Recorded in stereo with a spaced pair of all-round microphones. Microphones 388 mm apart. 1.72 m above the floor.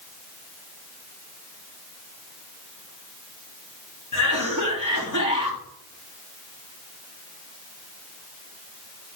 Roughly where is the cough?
Left.